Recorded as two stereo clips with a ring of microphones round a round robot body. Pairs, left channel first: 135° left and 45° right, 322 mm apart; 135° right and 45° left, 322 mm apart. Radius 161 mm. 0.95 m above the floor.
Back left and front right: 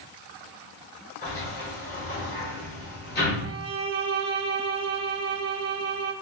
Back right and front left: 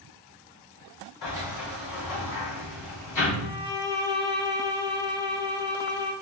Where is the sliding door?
165° right, 2.5 m.